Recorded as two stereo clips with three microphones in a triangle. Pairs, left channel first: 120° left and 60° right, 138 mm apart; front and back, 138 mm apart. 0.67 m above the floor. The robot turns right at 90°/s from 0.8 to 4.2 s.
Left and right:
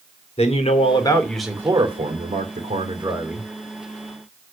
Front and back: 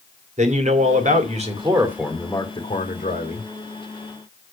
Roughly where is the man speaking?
Behind left.